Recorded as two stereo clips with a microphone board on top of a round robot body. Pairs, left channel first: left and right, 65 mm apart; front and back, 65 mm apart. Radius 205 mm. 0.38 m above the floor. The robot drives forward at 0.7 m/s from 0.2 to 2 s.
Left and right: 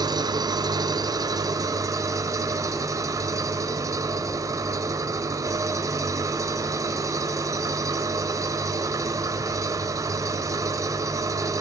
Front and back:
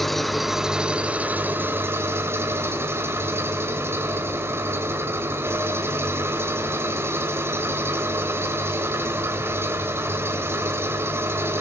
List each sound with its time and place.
0.0 s an engine running: 85° right, 1.7 m; by 11.6 s 125° right, 2 m